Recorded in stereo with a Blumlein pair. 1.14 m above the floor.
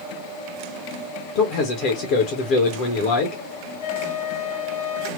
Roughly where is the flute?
Ahead left.